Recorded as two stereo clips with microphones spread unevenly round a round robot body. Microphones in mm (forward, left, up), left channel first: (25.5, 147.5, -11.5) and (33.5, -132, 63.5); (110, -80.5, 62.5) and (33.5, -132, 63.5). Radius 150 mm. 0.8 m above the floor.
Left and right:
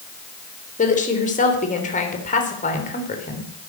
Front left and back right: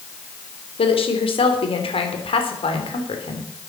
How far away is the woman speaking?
About 3.5 m.